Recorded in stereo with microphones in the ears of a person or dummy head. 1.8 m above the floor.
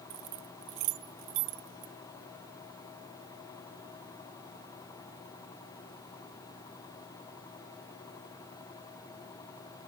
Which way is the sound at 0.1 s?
30° right (ahead or behind).